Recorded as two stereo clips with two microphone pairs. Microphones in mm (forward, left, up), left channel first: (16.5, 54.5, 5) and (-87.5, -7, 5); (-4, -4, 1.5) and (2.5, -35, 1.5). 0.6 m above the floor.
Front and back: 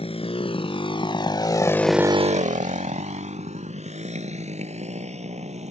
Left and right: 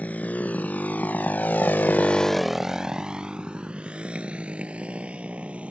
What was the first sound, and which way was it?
A motorcycle, 70° left.